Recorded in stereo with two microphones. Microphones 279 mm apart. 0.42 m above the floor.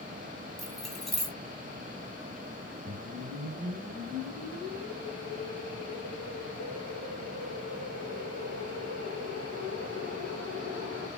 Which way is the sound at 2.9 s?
45° right (ahead or behind).